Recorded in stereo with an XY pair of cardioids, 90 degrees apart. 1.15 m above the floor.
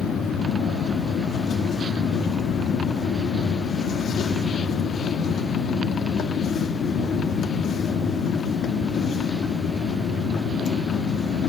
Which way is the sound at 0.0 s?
70° left.